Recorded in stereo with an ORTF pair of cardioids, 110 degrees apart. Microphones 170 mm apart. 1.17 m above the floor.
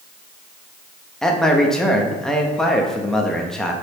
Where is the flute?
I don't hear a flute.